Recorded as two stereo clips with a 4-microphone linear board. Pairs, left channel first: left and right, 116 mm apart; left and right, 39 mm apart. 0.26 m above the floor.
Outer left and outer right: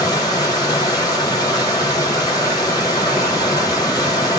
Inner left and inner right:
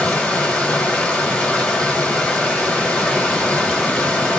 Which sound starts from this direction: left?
Running water, at 0.0 s.